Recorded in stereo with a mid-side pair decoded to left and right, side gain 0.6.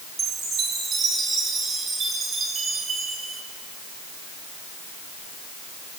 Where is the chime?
40° right, 5.5 m.